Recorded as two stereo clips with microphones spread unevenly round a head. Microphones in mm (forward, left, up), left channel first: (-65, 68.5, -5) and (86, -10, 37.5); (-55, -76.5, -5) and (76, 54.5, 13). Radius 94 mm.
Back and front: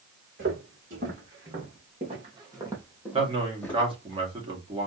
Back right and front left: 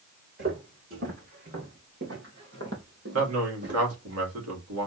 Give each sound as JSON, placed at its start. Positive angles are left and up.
{"t": 0.4, "sound": "footsteps", "azimuth_deg": 5, "distance_m": 4.0}
{"t": 3.1, "sound": "a man speaking", "azimuth_deg": 35, "distance_m": 2.5}